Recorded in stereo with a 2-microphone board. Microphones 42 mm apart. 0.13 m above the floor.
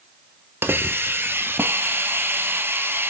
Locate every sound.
0.6 s a hiss: 55° right (ahead or behind), 0.6 m